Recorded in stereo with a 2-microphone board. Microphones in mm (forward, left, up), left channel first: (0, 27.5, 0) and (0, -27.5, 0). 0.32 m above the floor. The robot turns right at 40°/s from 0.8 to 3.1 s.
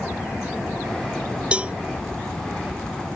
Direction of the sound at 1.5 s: 20° right (ahead or behind).